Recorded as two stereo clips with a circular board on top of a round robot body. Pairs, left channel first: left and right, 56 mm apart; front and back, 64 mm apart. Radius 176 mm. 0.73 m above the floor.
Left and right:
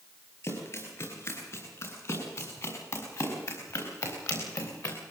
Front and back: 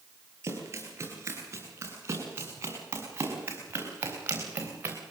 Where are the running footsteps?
130° left, 8 m; by 5.0 s 115° left, 4.5 m.